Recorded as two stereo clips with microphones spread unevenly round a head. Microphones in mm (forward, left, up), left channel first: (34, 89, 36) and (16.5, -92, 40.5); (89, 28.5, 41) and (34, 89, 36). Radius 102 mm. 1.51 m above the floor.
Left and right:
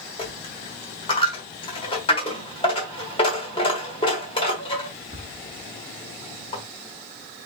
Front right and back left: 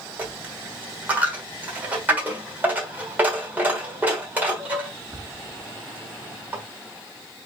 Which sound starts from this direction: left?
A dropped coin, at 0.2 s.